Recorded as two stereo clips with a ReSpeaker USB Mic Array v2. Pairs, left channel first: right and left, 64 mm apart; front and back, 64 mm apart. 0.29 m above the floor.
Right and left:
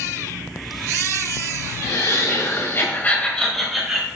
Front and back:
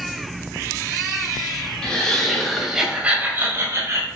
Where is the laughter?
75° right, 2 m; by 4.1 s 165° left, 1.8 m.